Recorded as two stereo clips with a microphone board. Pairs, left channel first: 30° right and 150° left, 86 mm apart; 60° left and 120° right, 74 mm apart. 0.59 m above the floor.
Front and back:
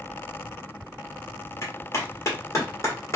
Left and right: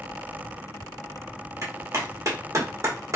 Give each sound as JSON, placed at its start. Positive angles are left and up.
{"t": 1.6, "sound": "a clap", "azimuth_deg": -80, "distance_m": 1.3}